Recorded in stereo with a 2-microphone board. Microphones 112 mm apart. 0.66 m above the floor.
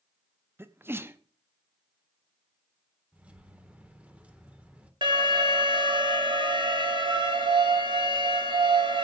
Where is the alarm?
45° right (ahead or behind), 1.9 m.